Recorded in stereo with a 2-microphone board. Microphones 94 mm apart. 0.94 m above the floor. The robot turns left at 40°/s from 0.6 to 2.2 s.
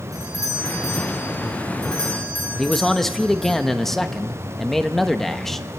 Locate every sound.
0.1 s a doorbell: 135° right, 5.5 m; by 3.5 s 160° left, 5.5 m
2.5 s a man speaking: 5° left (ahead or behind), 1.0 m